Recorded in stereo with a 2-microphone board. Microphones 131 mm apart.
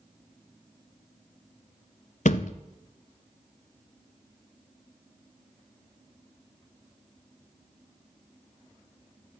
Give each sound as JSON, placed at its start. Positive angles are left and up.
{"t": 2.2, "sound": "a thud", "side_deg": 70, "distance_m": 0.7}